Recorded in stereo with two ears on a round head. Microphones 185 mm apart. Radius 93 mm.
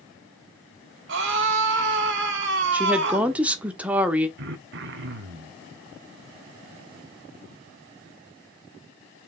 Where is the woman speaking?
5° right (ahead or behind), 1.3 m.